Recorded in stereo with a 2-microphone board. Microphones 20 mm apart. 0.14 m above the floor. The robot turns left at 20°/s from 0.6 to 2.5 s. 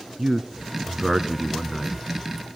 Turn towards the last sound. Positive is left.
turn(degrees=-10)  # may be behind; listen again after turning